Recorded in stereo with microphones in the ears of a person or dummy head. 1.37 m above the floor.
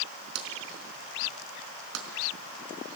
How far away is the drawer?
About 4 m.